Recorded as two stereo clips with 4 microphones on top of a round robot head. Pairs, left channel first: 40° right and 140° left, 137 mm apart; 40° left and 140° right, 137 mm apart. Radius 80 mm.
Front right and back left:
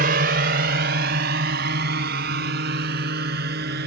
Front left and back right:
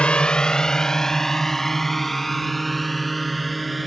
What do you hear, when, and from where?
0.0 s a drone: 120° left; by 3.9 s 130° left